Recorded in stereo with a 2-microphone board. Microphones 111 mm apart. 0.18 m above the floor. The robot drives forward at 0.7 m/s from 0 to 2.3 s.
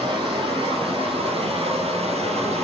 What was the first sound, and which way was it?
Running water, 45° right (ahead or behind).